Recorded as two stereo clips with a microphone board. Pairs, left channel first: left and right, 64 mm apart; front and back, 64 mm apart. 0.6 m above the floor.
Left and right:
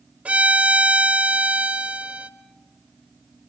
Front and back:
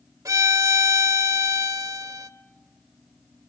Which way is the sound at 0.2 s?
155° right.